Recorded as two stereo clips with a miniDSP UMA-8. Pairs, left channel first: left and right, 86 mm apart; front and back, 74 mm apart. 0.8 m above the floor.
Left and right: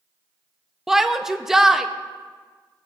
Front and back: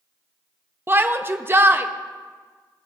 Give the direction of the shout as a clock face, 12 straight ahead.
6 o'clock.